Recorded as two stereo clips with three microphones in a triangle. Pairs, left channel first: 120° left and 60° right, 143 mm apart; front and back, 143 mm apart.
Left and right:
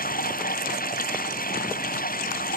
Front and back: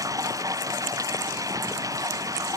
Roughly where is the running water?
Behind left.